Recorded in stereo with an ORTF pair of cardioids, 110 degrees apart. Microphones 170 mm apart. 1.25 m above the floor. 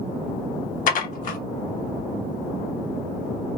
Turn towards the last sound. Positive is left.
turn(degrees=60)